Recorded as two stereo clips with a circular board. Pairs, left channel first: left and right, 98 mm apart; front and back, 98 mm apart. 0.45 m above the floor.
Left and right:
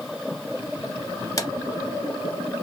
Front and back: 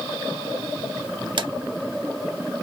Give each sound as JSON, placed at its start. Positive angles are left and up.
{"t": 1.4, "sound": "a drawer", "azimuth_deg": 145, "distance_m": 0.6}